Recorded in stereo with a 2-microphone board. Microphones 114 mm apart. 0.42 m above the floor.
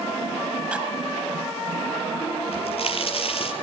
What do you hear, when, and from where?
0.7 s cutlery clinking: 10° right (ahead or behind), 4 m
2.5 s a crack: 55° left (ahead or behind), 6 m